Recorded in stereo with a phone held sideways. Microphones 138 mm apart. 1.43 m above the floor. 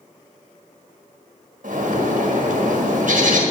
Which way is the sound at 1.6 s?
70° right (ahead or behind).